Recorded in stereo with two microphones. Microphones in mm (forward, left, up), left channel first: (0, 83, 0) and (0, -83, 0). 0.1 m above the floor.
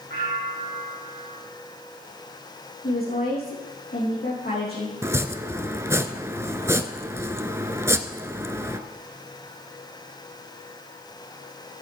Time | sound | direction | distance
0.1 | a bell | 60° right (ahead or behind) | 3 m
2.8 | a woman speaking | 70° left (ahead or behind) | 4.5 m
5.0 | chopping | 15° right (ahead or behind) | 0.6 m